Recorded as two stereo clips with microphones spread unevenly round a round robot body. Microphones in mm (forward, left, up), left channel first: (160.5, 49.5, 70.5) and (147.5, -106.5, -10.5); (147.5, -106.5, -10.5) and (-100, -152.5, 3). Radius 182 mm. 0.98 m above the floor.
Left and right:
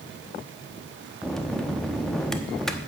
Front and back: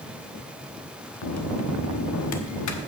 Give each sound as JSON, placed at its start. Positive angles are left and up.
{"t": 1.2, "sound": "a bell", "azimuth_deg": 0, "distance_m": 1.1}